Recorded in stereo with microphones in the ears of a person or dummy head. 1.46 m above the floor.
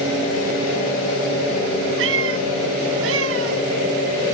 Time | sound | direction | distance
2.0 | a cat meowing | 75° right (ahead or behind) | ?